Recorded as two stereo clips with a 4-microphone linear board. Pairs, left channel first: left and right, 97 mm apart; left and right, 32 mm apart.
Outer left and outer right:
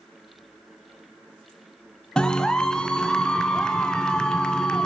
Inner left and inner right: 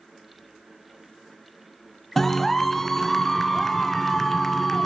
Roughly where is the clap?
Centre.